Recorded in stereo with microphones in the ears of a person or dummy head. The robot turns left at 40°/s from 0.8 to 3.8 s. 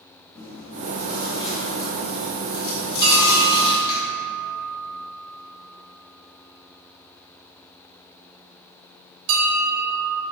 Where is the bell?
50° right (ahead or behind), 2.0 m; by 10.2 s 80° right, 2.0 m.